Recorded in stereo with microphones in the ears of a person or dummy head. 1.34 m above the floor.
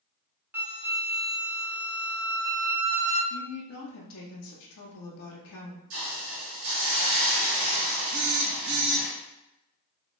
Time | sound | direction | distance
0.5 | a flute | 5° right (ahead or behind) | 0.8 m
3.3 | a woman speaking | 75° left (ahead or behind) | 0.6 m
5.9 | a hiss | 65° right (ahead or behind) | 2.0 m
8.1 | a phone buzzing | 50° right (ahead or behind) | 0.5 m